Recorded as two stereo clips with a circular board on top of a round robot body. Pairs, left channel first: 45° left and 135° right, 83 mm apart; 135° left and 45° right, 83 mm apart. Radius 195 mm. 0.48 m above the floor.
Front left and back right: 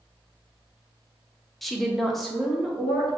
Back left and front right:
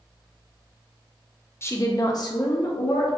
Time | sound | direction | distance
1.6 | a woman speaking | 130° left | 0.9 m